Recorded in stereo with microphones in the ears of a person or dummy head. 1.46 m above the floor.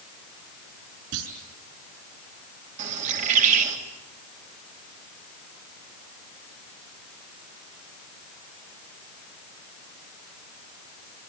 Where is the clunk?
75° right (ahead or behind), 6 m.